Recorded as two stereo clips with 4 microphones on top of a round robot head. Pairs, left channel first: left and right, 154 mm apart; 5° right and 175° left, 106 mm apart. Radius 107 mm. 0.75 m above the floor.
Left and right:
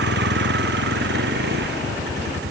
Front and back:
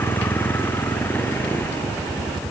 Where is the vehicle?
80° right.